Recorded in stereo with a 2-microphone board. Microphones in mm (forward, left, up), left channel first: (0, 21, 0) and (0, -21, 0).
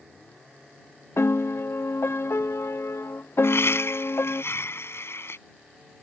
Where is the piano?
80° left.